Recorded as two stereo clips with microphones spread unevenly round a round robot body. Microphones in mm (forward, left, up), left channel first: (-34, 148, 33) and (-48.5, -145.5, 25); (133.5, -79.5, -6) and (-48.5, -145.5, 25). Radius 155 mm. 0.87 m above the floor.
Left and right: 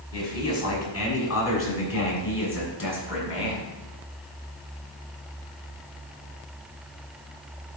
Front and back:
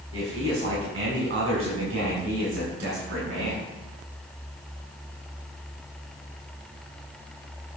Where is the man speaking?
125° left, 5.5 m; by 3.7 s 135° left, 7 m.